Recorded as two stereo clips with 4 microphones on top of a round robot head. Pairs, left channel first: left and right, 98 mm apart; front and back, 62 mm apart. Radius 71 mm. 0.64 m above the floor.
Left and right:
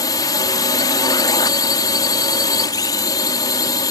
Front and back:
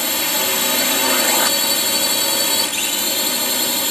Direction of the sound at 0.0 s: 85° left.